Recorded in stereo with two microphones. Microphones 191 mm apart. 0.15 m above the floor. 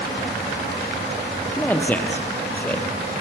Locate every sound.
1.6 s a man speaking: 10° left (ahead or behind), 3 m